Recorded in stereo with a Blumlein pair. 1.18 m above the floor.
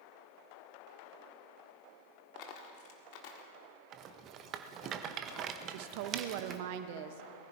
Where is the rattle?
30° right, 0.8 m.